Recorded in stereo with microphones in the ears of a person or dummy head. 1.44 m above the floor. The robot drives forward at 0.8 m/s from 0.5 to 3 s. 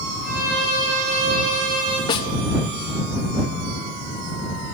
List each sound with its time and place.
0.2 s a violin: 50° right (ahead or behind), 5 m; by 2.0 s 45° right (ahead or behind), 6 m
2.1 s a snare drum: 25° left (ahead or behind), 0.9 m; by 2.3 s 20° left (ahead or behind), 1.0 m